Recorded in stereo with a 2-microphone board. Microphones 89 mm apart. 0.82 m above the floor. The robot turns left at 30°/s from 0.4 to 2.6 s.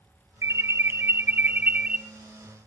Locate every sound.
0.4 s an alarm: 115° right, 0.5 m; by 2.0 s 160° right, 0.5 m